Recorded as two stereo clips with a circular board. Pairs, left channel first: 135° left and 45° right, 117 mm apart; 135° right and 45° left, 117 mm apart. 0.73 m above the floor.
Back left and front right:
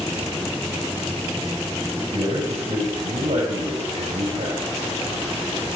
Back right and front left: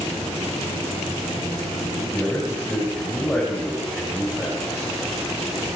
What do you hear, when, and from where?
2.1 s a man speaking: 60° right, 5 m